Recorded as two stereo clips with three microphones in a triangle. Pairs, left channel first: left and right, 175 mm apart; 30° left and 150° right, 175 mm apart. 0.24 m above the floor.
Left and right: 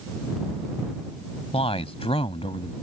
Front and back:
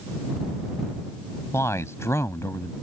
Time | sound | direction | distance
1.5 | a man speaking | 90° left | ?